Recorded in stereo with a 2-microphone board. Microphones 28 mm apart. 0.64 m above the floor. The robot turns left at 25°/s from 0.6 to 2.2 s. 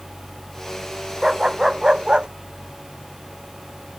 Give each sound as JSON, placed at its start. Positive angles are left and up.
{"t": 1.2, "sound": "a dog barking", "side_deg": -10}